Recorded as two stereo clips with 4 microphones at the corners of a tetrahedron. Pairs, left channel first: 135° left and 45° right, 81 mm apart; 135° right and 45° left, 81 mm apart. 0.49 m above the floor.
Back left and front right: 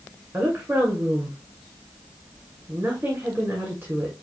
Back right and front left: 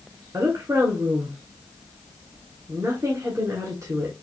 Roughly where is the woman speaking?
Ahead.